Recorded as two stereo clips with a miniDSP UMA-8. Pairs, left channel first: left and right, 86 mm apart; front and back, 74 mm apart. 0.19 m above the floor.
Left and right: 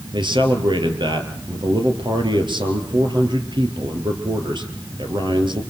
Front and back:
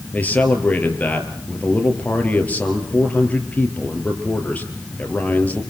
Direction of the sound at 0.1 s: 70° right.